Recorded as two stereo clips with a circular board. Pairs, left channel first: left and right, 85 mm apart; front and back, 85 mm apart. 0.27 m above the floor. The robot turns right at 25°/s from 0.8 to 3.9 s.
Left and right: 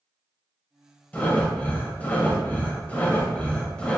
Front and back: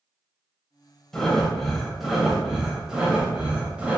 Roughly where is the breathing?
Left.